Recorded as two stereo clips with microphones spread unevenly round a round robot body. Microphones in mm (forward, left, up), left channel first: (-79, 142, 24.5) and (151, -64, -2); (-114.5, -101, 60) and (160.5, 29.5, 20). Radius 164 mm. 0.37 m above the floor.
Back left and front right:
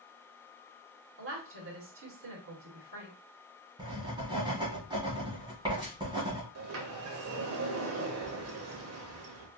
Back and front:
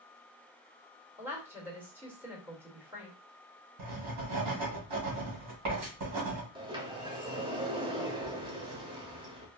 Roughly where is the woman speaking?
Ahead right.